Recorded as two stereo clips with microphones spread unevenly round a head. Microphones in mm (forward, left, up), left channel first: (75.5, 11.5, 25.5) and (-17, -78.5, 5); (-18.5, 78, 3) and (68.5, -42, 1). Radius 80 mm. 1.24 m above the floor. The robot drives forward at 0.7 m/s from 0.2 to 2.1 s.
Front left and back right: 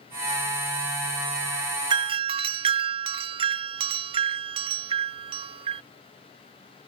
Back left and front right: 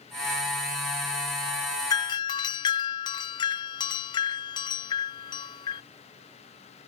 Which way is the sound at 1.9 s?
170° right.